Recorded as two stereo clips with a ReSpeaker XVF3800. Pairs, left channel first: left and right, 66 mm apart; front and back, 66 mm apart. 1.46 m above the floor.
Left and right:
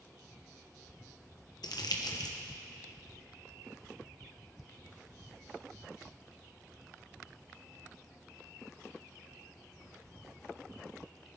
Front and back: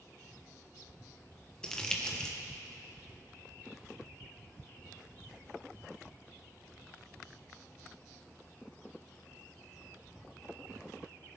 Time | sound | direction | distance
1.6 | crumpling | 80° left | 1.2 m